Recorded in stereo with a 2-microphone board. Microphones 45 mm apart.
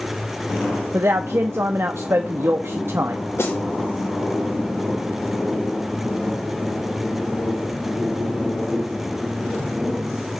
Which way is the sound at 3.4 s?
65° left (ahead or behind).